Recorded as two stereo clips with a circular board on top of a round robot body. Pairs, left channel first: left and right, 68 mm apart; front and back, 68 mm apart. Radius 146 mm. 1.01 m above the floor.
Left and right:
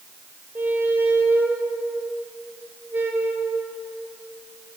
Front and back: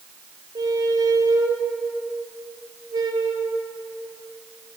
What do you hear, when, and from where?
0.6 s a squeak: 150° right, 3.5 m